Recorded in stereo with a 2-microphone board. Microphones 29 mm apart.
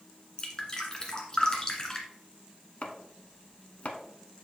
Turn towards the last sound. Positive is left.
turn(degrees=55)  # may be behind; listen again after turning